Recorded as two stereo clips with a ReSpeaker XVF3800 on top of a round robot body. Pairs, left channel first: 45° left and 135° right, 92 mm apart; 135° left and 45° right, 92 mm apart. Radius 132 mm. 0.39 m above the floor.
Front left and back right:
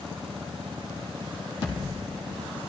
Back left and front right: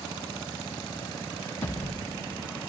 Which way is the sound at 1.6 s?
65° left.